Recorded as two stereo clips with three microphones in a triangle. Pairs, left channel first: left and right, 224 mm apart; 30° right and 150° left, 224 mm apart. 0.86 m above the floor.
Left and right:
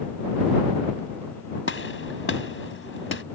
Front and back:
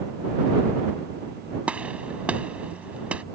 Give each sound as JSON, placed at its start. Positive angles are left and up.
{"t": 1.7, "sound": "a gunshot", "azimuth_deg": 65}